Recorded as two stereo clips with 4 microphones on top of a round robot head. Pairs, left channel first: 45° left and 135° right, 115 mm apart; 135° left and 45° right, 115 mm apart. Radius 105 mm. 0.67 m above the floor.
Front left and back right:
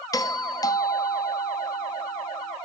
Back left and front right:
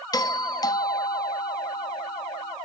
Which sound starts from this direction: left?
A doorbell, at 0.1 s.